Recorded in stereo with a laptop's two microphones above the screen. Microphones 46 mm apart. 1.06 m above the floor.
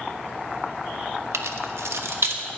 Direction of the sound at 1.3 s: 75° right (ahead or behind).